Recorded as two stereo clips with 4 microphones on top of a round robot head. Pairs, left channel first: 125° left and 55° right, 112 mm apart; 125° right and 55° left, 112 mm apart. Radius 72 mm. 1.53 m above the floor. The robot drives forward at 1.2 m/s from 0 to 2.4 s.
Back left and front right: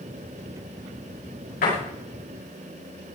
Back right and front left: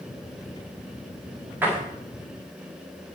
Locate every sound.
1.6 s a door slam: 130° left, 9 m